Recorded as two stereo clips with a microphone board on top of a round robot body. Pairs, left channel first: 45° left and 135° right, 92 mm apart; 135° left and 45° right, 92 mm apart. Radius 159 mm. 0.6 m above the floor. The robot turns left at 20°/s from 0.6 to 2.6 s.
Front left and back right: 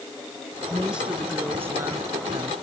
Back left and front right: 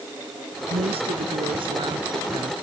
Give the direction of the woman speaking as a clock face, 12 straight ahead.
2 o'clock.